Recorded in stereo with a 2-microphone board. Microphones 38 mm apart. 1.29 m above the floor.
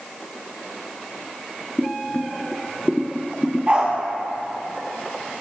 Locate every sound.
1.8 s boiling: 20° left (ahead or behind), 0.7 m
3.7 s a dog barking: 30° right (ahead or behind), 3.5 m